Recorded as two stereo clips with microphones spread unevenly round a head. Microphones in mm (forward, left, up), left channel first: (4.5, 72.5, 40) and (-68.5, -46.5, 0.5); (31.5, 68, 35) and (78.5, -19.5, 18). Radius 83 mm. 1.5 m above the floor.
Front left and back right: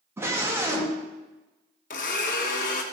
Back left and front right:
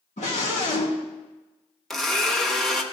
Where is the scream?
160° left, 2.5 m.